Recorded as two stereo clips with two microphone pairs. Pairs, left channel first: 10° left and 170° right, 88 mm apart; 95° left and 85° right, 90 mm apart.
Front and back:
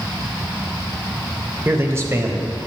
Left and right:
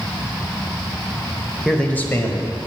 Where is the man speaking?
Straight behind, 0.9 m; by 2.7 s 140° left, 1.6 m.